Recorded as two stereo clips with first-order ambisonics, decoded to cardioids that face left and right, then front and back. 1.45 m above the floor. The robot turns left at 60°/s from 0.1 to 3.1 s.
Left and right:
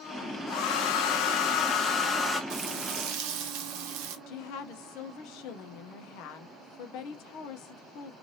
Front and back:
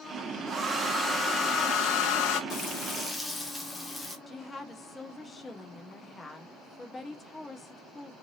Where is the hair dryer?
115° left, 0.8 m; by 2.4 s straight ahead, 0.8 m.